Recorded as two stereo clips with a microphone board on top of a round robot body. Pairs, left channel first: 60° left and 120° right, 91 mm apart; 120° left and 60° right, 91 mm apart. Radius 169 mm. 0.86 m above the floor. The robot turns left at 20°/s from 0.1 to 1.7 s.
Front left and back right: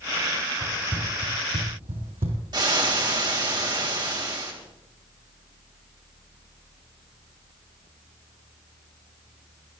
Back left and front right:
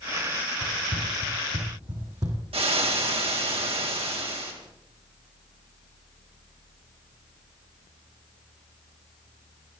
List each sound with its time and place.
0.6 s running footsteps: 50° right, 1.7 m; by 2.4 s 110° right, 2.5 m
2.5 s frying: 75° right, 2.5 m